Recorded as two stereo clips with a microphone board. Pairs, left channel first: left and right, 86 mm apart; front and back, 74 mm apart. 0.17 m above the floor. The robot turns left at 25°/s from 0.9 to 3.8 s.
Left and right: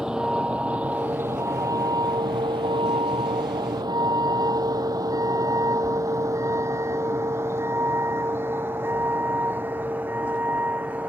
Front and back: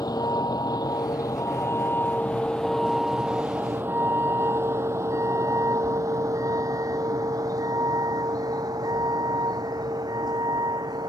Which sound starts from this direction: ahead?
A vehicle, at 0.0 s.